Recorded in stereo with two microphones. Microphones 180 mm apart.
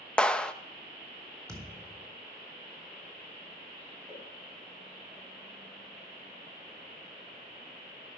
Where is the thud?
15° right (ahead or behind), 4 m.